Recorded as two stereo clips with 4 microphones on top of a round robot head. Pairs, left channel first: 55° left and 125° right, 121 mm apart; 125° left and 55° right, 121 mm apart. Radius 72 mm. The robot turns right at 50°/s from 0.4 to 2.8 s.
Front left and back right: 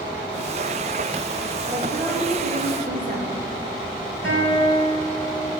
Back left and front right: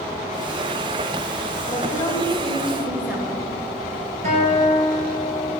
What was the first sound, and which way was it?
A woman speaking, 170° left.